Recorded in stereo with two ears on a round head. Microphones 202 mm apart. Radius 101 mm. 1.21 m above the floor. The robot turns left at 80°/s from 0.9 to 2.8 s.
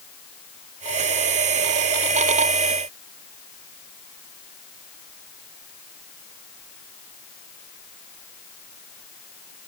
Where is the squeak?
I don't hear a squeak.